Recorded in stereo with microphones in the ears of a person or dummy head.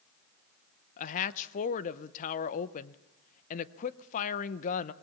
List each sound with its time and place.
1.0 s a woman speaking: 45° left (ahead or behind), 0.8 m